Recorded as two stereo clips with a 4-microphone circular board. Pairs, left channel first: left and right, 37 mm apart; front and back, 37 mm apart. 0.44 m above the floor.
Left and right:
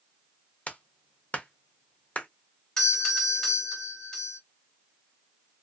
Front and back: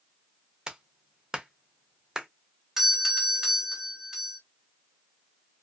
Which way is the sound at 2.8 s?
140° left.